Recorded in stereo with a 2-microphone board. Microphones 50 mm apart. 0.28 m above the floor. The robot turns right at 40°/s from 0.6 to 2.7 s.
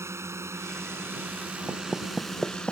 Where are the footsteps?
25° right (ahead or behind); by 2.7 s 20° left (ahead or behind).